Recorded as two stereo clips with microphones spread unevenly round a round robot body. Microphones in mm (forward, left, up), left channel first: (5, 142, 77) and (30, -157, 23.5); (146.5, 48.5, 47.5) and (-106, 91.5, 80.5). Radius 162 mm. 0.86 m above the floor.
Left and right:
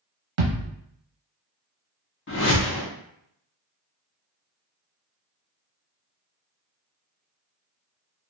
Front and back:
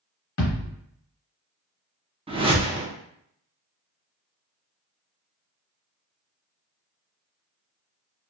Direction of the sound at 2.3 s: 105° left.